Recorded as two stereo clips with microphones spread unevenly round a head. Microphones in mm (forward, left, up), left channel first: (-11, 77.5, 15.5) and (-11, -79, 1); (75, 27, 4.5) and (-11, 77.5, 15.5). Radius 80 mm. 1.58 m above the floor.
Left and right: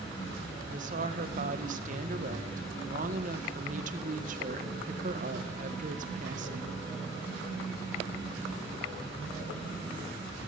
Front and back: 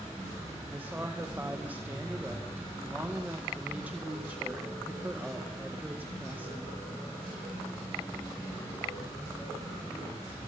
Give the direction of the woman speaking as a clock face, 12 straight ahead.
4 o'clock.